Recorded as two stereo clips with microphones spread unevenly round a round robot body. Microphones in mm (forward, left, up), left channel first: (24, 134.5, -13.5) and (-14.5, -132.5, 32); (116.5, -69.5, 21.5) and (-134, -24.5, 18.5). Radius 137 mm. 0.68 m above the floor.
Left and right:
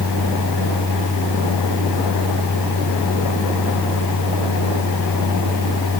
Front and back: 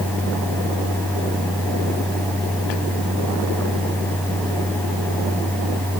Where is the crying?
I don't hear crying.